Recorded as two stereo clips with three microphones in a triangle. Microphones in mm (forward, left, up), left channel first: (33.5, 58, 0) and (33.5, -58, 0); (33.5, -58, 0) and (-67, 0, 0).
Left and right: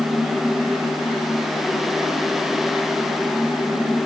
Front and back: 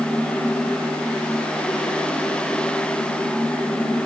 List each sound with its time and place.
Only background noise.